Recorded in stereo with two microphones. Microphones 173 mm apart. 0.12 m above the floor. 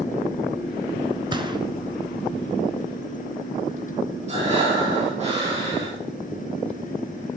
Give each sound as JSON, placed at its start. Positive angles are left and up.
{"t": 1.3, "sound": "a gunshot", "side_deg": -25, "distance_m": 1.4}
{"t": 4.3, "sound": "breathing", "side_deg": -40, "distance_m": 6.0}